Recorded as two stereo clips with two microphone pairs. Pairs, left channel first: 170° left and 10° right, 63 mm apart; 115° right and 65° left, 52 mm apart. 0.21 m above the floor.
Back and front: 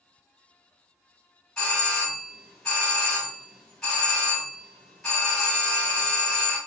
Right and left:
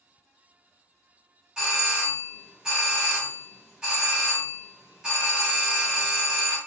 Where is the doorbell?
120° left, 1.4 m.